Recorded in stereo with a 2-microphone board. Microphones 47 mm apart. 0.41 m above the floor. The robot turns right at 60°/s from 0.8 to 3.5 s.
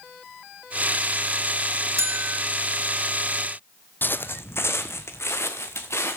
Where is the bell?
70° right (ahead or behind), 1.7 m; by 2.4 s 45° right (ahead or behind), 1.7 m.